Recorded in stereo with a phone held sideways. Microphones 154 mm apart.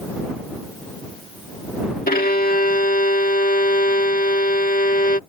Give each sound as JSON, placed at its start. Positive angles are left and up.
{"t": 2.1, "sound": "a violin", "side_deg": 70}